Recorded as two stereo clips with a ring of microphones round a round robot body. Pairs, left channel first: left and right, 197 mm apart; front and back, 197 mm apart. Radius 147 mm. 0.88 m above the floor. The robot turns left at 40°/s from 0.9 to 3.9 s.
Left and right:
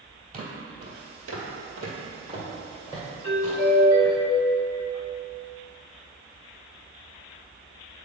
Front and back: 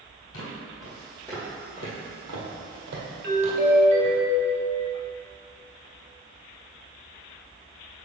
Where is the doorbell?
155° left, 1.5 m; by 4.8 s 130° left, 1.5 m.